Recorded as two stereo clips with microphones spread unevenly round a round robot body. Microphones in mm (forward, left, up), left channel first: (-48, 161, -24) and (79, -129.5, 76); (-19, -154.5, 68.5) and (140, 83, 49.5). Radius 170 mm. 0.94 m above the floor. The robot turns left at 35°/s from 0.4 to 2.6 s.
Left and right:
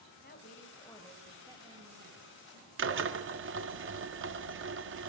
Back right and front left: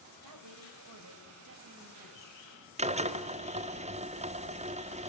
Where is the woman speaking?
55° left, 4.5 m; by 2.7 s 25° right, 4.5 m.